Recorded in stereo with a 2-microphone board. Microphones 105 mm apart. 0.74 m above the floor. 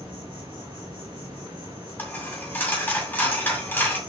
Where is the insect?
45° right (ahead or behind), 3.5 m.